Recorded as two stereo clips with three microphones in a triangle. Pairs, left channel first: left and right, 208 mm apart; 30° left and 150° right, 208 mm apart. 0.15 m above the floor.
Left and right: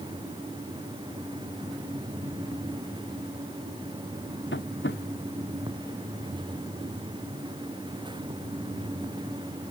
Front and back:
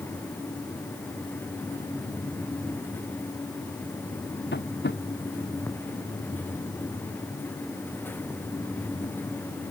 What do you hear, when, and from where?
4.5 s tapping: 65° left